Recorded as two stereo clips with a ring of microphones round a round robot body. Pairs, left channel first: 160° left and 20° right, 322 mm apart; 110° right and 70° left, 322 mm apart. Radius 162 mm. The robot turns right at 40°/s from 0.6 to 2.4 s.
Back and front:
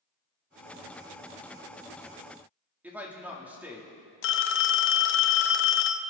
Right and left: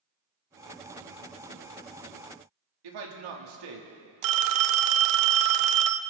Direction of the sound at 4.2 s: 105° left.